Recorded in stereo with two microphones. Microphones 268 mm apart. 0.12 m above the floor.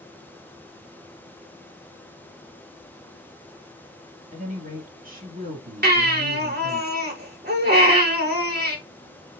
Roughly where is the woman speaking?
Right.